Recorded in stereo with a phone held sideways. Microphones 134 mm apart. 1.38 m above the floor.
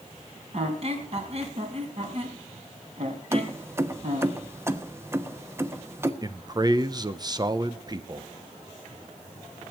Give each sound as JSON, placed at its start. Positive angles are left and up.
{"t": 0.5, "sound": "a squeak", "side_deg": -50, "distance_m": 3.0}
{"t": 3.3, "sound": "keys jangling", "side_deg": -20, "distance_m": 1.0}
{"t": 6.2, "sound": "a man speaking", "side_deg": -30, "distance_m": 0.9}